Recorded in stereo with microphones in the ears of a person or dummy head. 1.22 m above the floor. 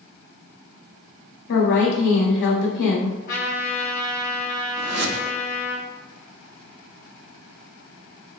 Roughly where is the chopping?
I don't hear chopping.